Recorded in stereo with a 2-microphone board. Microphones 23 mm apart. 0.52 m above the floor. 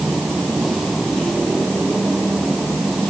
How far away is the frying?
No frying in this recording.